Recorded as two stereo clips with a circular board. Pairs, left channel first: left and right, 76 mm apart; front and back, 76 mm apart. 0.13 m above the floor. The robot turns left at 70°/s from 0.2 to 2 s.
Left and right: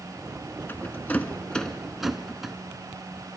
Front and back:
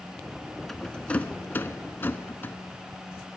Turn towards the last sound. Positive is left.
turn(degrees=-10)